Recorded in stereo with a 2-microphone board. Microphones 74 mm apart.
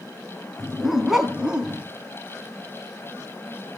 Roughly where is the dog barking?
Centre.